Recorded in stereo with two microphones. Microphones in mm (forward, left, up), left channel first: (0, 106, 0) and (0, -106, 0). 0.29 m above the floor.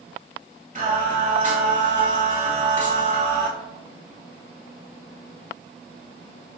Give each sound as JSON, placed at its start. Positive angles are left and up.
{"t": 0.8, "sound": "singing", "side_deg": -40, "distance_m": 1.1}